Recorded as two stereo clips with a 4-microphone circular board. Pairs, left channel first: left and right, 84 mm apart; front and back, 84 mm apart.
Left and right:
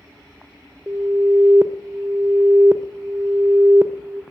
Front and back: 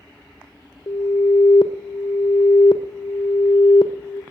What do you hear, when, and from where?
0.9 s an alarm: 25° right, 0.9 m